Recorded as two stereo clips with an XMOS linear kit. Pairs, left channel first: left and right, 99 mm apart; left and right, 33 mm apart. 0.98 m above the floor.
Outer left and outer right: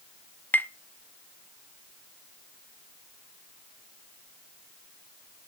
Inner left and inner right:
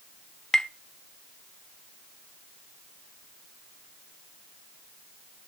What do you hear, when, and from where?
0.5 s tapping: 20° left (ahead or behind), 0.5 m